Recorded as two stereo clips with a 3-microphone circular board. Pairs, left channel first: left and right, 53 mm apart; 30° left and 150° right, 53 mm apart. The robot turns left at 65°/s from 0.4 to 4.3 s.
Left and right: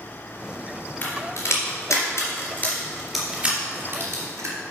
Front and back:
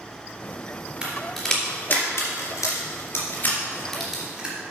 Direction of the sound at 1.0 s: 135° left.